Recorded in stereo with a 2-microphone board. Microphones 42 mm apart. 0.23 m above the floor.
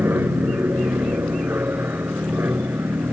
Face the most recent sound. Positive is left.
turn(degrees=-65)  # may be behind; listen again after turning